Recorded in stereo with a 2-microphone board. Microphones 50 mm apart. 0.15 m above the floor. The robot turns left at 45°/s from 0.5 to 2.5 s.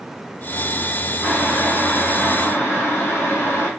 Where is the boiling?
170° right, 2.5 m; by 3.7 s 130° left, 2.5 m.